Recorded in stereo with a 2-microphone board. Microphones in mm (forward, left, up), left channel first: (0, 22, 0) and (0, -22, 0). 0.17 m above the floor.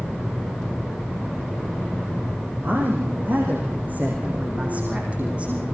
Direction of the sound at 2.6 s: 45° right (ahead or behind).